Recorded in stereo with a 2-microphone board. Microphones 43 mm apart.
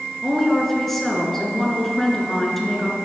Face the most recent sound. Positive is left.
turn(degrees=5)  # may be behind; listen again after turning